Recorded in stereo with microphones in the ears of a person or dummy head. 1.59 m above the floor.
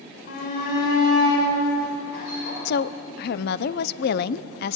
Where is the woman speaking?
60° left (ahead or behind), 0.8 m.